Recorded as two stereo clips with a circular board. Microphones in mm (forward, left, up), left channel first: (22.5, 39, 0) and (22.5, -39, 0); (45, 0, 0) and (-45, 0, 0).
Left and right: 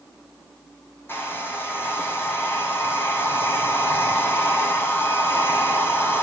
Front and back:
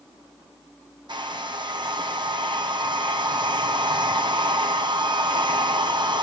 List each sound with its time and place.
1.1 s a hair dryer: 150° left, 2.0 m